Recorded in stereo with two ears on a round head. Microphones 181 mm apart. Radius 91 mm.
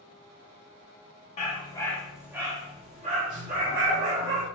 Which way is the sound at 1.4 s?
35° left (ahead or behind).